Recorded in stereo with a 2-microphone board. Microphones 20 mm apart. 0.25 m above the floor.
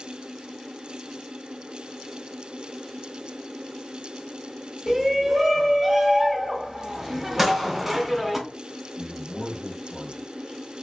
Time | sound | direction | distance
4.9 | a shout | 10° right (ahead or behind) | 1.1 m
7.4 | a gunshot | 5° right (ahead or behind) | 1.4 m
9.0 | a man speaking | 40° left (ahead or behind) | 1.4 m